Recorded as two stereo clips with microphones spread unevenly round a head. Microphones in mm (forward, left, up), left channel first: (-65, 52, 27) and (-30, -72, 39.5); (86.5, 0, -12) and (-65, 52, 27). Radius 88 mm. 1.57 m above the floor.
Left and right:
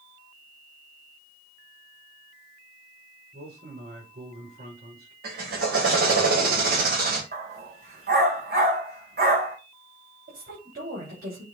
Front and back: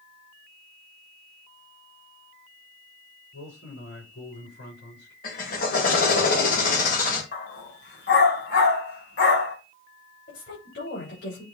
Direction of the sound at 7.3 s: 55° right.